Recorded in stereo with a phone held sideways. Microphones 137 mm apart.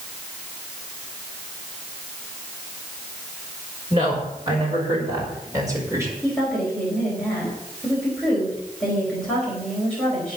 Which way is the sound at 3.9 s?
35° right (ahead or behind).